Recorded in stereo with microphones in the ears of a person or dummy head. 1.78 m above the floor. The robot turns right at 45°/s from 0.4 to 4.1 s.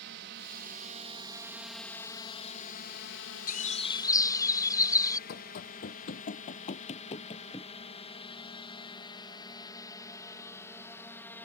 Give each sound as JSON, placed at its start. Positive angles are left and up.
{"t": 0.0, "sound": "a drone", "side_deg": -60}
{"t": 3.5, "sound": "a bird", "side_deg": 45}
{"t": 5.3, "sound": "running footsteps", "side_deg": 55}